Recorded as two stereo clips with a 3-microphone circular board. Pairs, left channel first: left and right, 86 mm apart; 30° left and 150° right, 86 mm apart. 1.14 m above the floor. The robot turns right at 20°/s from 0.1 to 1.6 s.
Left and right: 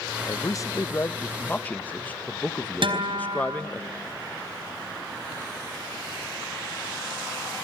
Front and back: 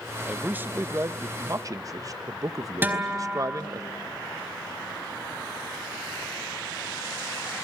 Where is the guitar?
85° right, 4 m.